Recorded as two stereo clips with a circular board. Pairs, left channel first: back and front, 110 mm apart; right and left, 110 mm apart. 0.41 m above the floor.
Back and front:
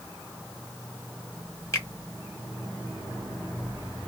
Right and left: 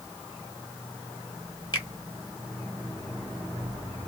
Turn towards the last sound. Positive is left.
turn(degrees=-125)